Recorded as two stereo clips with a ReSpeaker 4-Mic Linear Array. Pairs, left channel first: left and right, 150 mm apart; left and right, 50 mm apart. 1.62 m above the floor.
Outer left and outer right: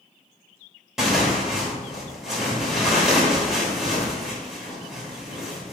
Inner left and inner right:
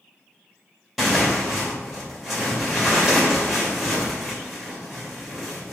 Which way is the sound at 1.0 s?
Centre (ahead or behind).